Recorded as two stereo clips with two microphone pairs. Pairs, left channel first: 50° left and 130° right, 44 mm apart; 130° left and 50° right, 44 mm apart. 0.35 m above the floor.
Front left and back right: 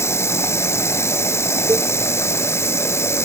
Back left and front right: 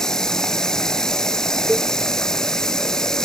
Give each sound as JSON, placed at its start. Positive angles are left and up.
{"t": 0.0, "sound": "running water", "azimuth_deg": 55}
{"t": 1.7, "sound": "a cowbell", "azimuth_deg": -135}